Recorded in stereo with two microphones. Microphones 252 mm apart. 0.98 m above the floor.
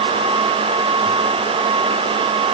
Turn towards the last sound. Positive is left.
No sound to turn to.